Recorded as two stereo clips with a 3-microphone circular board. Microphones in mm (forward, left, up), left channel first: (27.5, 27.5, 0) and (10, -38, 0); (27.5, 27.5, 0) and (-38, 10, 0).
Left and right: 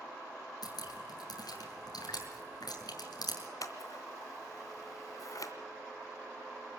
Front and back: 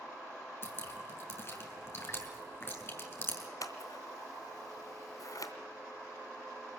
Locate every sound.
0.6 s dripping: 65° left, 6 m
3.6 s scissors: 45° left, 2.5 m